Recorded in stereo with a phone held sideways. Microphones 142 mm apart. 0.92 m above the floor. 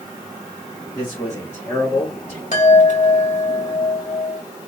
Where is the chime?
55° left (ahead or behind), 1.7 m.